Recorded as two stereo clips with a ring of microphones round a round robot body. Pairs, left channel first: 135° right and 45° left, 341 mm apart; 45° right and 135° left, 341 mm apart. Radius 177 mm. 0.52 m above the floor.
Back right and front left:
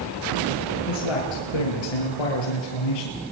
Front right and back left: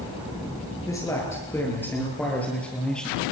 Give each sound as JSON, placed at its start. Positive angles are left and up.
{"t": 0.9, "sound": "a man speaking", "azimuth_deg": -125, "distance_m": 9.0}